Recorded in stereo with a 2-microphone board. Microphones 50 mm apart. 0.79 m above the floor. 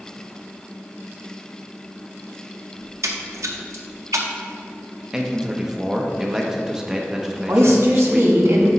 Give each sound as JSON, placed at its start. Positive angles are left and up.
{"t": 2.8, "sound": "a splash", "side_deg": -80, "distance_m": 0.7}
{"t": 5.1, "sound": "a man speaking", "side_deg": -15, "distance_m": 0.7}
{"t": 7.5, "sound": "a woman speaking", "side_deg": -55, "distance_m": 1.2}